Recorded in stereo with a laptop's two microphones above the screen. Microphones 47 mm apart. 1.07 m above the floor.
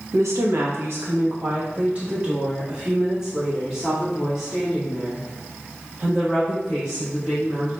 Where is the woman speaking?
80° right, 1.0 m; by 7.7 s centre (ahead or behind), 4 m.